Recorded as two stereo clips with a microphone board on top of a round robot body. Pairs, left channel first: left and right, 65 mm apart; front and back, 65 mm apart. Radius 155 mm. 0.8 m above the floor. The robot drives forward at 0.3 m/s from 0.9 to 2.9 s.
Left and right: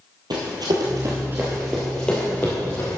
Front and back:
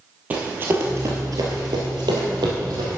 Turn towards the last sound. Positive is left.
turn(degrees=145)